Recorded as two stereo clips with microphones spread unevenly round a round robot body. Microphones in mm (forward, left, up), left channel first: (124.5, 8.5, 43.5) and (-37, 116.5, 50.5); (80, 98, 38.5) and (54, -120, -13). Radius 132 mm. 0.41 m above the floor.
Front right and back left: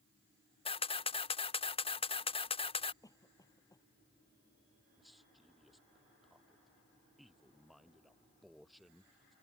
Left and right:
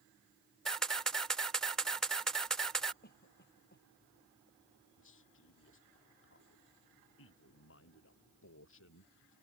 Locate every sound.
0.7 s a camera shutter: 25° right
3.0 s a cough: 40° left
5.0 s a man speaking: 55° left